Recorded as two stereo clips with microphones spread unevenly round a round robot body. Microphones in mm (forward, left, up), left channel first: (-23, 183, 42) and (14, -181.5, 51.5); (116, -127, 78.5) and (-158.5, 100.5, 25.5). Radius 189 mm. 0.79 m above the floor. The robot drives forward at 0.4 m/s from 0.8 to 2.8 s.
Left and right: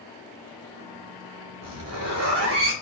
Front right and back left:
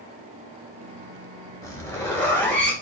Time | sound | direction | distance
1.6 | a zipper | 125° right | 4 m